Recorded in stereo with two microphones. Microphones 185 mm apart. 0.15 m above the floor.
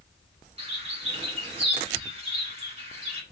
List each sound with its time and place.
0.6 s a bird: 35° right (ahead or behind), 0.9 m